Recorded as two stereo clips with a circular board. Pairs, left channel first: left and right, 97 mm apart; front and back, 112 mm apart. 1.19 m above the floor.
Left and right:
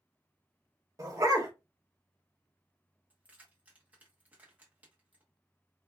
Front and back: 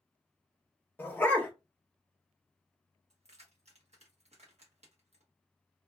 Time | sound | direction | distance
1.0 | a dog barking | 60° right | 0.7 m
3.1 | keys jangling | 165° right | 0.9 m